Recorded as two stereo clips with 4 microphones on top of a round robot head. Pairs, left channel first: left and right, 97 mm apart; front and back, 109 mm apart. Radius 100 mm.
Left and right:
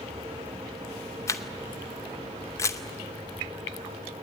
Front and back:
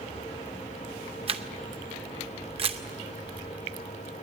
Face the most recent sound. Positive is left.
turn(degrees=150)